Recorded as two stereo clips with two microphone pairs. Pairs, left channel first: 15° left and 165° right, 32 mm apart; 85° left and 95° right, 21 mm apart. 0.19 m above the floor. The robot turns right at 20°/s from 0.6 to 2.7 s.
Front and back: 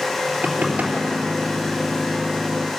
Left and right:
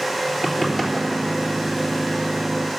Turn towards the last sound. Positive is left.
turn(degrees=-165)